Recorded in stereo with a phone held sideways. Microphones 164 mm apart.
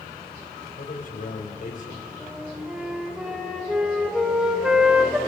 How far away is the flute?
About 3.5 m.